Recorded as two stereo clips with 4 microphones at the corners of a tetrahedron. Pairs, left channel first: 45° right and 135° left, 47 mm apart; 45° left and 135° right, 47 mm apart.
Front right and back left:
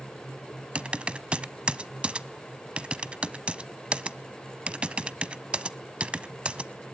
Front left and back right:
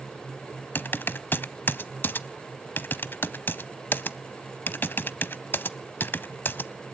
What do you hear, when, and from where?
0.8 s typing on a keyboard: 75° left, 0.5 m